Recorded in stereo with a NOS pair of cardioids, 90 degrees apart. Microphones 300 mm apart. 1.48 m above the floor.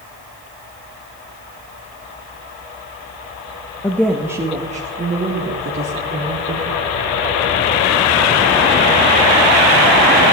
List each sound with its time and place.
3.8 s a woman speaking: 10° left, 1.4 m; by 6.8 s 50° right, 4 m